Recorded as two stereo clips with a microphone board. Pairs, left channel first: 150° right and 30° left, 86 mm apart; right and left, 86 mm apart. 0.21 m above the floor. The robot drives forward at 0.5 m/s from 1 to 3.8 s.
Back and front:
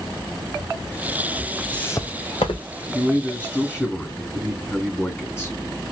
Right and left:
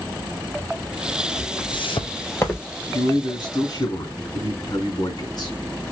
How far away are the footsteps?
About 1.0 m.